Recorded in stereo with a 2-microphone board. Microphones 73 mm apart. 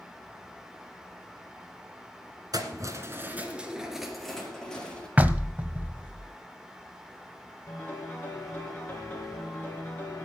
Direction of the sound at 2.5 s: 60° right (ahead or behind).